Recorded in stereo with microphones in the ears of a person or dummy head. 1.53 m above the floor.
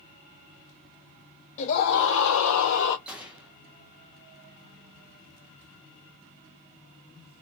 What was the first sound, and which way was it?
A scream, 40° left (ahead or behind).